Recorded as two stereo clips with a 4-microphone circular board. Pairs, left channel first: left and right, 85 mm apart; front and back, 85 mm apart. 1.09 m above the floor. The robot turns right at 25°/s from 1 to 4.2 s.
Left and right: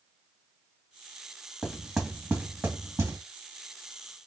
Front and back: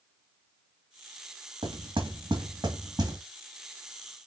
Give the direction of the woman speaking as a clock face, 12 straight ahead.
No woman speaking in this recording.